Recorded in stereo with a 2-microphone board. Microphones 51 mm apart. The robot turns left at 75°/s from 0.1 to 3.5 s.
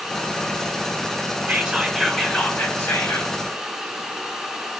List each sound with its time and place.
1.5 s whispering: 145° right, 2.0 m; by 3.3 s 75° left, 2.0 m